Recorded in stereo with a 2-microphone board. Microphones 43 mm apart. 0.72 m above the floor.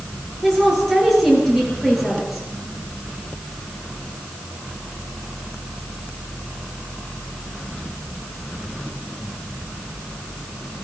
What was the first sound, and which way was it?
A woman speaking, 5° left (ahead or behind).